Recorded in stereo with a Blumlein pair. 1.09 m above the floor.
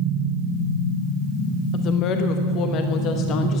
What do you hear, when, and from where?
1.7 s a woman speaking: 35° left, 1.1 m